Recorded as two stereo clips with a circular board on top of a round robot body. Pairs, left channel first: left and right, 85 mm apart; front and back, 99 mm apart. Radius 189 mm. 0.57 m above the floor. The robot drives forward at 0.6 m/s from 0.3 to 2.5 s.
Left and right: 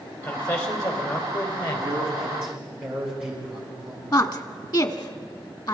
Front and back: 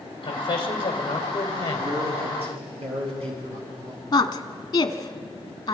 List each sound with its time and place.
0.2 s a man speaking: 40° left, 3.5 m; by 1.9 s 50° left, 3 m
1.8 s a man speaking: 175° right, 7.5 m
4.1 s a woman speaking: 50° left, 1.7 m